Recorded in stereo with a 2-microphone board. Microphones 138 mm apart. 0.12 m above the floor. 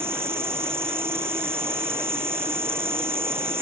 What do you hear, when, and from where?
0.0 s an insect: 15° right (ahead or behind)